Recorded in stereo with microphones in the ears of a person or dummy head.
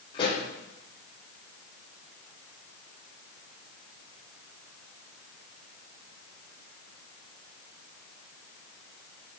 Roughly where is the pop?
Left.